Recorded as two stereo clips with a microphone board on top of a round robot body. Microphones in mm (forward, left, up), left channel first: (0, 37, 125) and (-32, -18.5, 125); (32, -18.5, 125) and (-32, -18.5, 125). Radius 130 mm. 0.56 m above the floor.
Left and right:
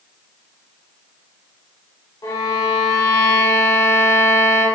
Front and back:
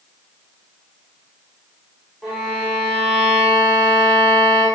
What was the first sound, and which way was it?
A violin, 85° left.